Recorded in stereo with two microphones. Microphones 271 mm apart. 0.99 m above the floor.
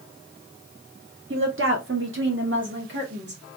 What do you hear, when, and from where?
1.3 s a woman speaking: 45° right (ahead or behind), 0.5 m; by 3.4 s 40° right (ahead or behind), 1.3 m